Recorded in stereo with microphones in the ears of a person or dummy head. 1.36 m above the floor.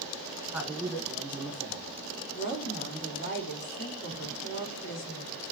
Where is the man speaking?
5° right (ahead or behind), 1.3 m.